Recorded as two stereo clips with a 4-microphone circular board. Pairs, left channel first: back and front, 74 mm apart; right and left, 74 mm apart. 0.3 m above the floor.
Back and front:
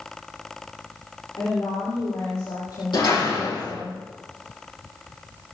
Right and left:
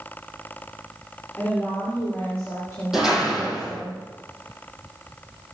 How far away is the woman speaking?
About 6 m.